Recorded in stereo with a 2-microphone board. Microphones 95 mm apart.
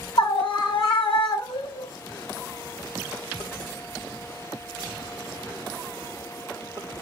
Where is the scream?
70° left (ahead or behind), 2 m.